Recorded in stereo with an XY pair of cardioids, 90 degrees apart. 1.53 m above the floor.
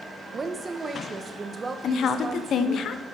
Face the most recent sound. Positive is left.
turn(degrees=70)